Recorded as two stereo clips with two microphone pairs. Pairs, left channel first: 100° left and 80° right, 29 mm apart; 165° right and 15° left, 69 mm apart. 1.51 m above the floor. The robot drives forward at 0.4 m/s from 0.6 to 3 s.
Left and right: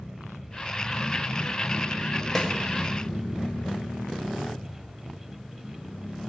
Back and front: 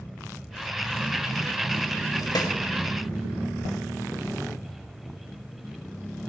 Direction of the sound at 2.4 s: Straight behind.